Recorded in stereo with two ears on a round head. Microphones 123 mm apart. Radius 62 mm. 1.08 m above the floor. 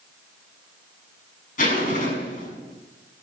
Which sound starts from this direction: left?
A zipper, at 1.6 s.